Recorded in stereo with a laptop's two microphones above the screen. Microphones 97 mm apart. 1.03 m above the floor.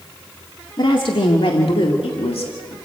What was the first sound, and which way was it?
A woman speaking, 55° left (ahead or behind).